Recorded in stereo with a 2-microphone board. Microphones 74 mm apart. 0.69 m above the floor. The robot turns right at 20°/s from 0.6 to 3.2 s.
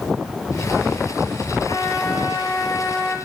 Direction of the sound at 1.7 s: 85° left.